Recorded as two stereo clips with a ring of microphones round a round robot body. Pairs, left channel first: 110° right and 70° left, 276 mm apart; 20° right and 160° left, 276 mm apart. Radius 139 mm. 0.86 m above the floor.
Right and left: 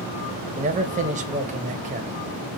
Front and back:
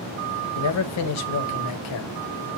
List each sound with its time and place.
0.6 s a man speaking: 5° left, 0.5 m